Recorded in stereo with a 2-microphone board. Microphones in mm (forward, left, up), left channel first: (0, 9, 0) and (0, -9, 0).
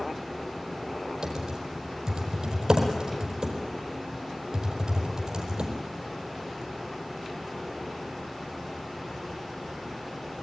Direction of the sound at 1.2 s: 35° right (ahead or behind).